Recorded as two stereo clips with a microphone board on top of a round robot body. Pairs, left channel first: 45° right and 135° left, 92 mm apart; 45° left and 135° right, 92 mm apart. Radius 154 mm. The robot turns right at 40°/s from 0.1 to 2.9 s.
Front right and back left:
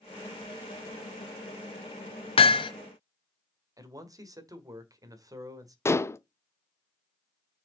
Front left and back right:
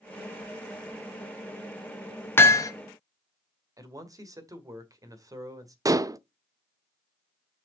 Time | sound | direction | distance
2.4 | hammering | 25° right | 0.8 m
3.8 | a man speaking | straight behind | 2.0 m
5.8 | dishes clattering | 95° right | 0.7 m